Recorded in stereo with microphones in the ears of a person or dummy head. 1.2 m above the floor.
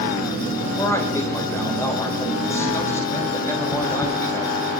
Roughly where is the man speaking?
Centre.